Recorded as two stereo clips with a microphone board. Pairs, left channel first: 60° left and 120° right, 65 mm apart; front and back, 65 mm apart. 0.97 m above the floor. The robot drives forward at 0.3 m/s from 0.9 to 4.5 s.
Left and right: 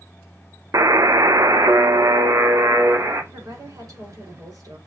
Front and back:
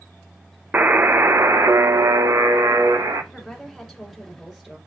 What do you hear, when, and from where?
0.7 s a buzzer: 125° right, 0.6 m; by 3.2 s 160° right, 1.1 m
3.3 s a woman speaking: 90° right, 3 m; by 4.8 s 100° right, 3 m